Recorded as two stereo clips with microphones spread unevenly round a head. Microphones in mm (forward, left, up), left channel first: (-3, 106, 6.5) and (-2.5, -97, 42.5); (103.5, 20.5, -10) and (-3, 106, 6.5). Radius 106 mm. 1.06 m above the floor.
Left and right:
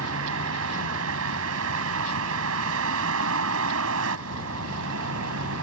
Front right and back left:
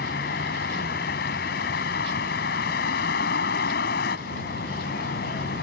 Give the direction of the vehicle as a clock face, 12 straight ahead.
2 o'clock.